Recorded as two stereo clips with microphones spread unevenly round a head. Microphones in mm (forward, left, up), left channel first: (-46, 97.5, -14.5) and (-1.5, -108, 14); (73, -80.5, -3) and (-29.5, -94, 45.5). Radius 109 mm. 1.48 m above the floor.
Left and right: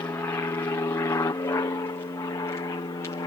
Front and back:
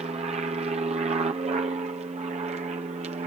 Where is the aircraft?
170° left; by 3.3 s 160° left.